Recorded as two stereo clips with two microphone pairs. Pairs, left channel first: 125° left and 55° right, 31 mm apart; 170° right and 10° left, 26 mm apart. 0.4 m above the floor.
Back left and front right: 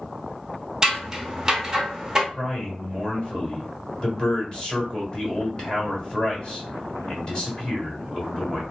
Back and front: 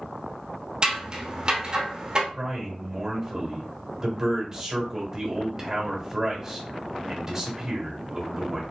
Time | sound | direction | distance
0.8 | scissors | straight ahead | 0.9 m
2.3 | a man speaking | 75° left | 1.6 m